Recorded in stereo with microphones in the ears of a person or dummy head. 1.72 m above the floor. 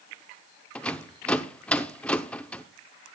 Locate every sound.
0.8 s a rattle: 10° left (ahead or behind), 0.7 m